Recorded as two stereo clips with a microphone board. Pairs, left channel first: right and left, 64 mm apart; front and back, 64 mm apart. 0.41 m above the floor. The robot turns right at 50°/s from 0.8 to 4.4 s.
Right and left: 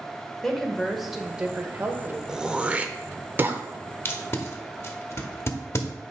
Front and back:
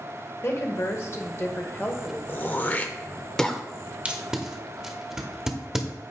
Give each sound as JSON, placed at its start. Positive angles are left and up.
{"t": 0.4, "sound": "a woman speaking", "azimuth_deg": -5, "distance_m": 1.0}
{"t": 2.3, "sound": "throat clearing", "azimuth_deg": 20, "distance_m": 0.5}
{"t": 4.0, "sound": "tape being pulled", "azimuth_deg": -120, "distance_m": 0.9}